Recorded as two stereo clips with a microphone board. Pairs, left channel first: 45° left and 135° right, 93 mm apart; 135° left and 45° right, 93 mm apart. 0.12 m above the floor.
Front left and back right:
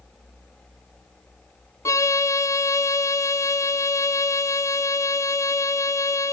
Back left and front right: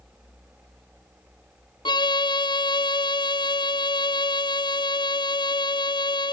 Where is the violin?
100° left, 0.5 m.